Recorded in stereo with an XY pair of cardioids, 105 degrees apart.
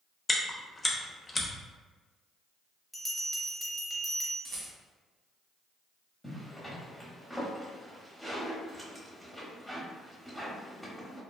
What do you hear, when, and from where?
0.3 s chewing: 25° left, 0.6 m
2.9 s a bell: 5° left, 0.8 m
4.5 s a rattle: 50° right, 0.9 m
6.2 s a zipper: straight ahead, 1.0 m